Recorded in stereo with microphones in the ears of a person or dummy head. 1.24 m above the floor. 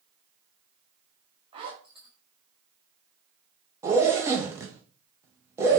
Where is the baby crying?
No baby crying in this recording.